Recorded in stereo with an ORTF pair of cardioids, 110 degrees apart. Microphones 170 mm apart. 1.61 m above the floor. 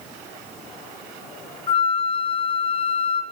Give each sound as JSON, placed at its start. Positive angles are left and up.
{"t": 1.7, "sound": "a flute", "azimuth_deg": 30, "distance_m": 0.5}